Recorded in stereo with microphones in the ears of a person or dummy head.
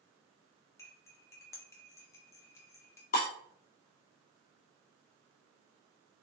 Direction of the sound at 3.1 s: 45° left (ahead or behind).